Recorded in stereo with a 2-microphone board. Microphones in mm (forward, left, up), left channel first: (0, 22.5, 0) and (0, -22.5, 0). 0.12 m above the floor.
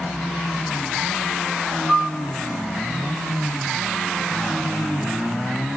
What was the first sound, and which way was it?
A piano, 25° left (ahead or behind).